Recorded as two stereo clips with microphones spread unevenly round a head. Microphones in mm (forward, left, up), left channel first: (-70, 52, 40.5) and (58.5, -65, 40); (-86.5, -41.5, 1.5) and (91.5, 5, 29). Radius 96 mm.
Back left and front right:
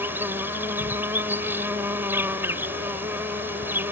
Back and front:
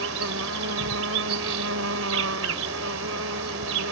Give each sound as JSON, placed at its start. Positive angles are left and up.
{"t": 0.0, "sound": "an insect", "azimuth_deg": 35}